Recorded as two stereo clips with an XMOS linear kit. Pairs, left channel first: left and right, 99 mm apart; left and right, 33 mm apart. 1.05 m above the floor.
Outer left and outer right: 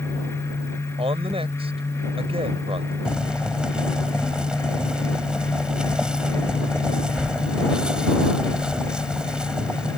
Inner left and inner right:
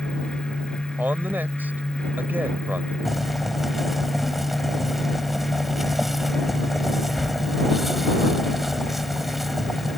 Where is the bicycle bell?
I don't hear a bicycle bell.